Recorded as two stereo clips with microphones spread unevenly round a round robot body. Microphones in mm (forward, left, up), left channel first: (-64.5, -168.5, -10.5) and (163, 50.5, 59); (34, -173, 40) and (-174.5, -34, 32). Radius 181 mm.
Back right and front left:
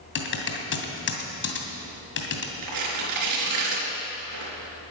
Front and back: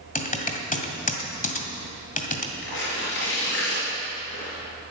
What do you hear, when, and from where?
0.1 s typing on a keyboard: 90° right, 2.5 m
2.6 s tearing paper: 25° left, 4.5 m